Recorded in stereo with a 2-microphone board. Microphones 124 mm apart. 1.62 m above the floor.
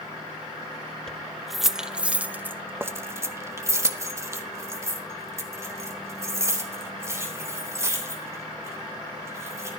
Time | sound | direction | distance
1.1 | keys jangling | 5° left (ahead or behind) | 1.0 m